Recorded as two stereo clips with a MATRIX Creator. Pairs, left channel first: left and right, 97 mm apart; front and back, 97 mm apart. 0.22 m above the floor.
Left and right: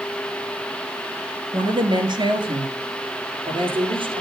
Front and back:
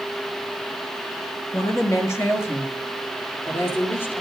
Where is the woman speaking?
55° right, 3.5 m; by 4.2 s 65° right, 5 m.